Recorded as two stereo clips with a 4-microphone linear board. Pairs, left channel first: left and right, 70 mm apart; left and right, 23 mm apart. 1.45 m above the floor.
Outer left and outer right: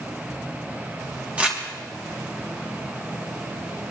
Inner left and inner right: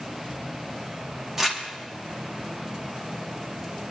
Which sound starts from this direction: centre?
Crumpling, at 1.4 s.